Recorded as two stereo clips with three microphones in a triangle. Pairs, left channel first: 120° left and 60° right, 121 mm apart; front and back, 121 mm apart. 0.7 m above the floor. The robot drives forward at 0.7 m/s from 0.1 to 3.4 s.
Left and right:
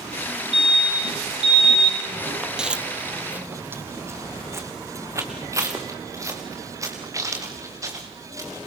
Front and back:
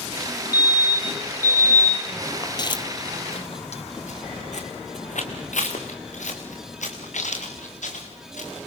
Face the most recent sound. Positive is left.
turn(degrees=5)